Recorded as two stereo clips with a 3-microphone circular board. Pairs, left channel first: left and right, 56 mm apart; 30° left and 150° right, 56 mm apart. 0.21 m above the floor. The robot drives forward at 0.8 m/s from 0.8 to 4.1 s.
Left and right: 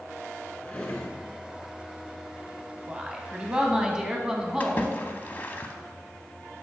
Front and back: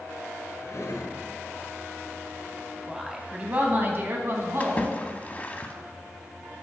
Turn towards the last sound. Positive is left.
turn(degrees=65)